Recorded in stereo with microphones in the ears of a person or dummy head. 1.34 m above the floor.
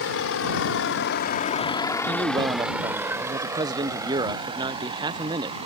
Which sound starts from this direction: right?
A man speaking, at 2.1 s.